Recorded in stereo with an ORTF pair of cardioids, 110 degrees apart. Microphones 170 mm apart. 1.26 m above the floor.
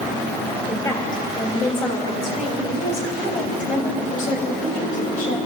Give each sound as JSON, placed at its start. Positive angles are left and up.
{"t": 0.7, "sound": "a woman speaking", "azimuth_deg": 20, "distance_m": 7.0}